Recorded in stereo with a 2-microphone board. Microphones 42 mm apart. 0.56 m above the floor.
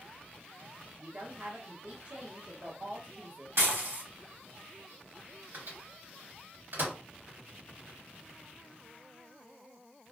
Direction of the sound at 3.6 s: 75° right (ahead or behind).